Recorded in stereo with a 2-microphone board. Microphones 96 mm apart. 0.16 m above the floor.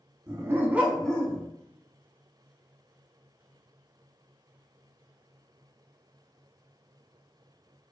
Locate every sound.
0.3 s a dog barking: 40° right (ahead or behind), 0.6 m; by 1.4 s 25° left (ahead or behind), 0.5 m